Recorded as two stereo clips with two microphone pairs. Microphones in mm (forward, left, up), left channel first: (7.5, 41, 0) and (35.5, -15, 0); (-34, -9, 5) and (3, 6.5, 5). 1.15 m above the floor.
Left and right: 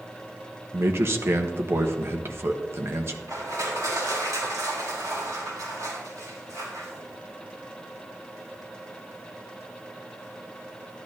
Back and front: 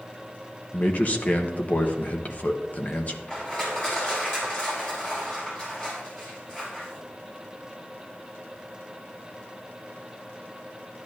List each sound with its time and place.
0.7 s a man speaking: 110° right, 1.1 m
3.3 s crushing: 95° right, 5 m